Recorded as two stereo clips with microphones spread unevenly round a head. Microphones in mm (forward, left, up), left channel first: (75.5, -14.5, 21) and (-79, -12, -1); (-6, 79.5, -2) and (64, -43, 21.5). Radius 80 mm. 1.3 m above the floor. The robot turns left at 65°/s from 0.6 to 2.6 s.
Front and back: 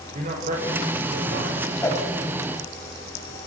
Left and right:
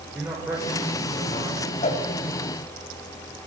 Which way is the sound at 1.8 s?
75° left.